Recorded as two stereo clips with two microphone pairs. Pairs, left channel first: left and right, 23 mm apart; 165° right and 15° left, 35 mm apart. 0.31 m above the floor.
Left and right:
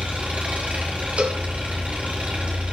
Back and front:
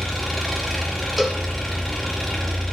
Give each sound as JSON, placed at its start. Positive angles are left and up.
{"t": 0.0, "sound": "an engine running", "azimuth_deg": -80, "distance_m": 4.5}
{"t": 1.2, "sound": "a cowbell", "azimuth_deg": -75, "distance_m": 1.5}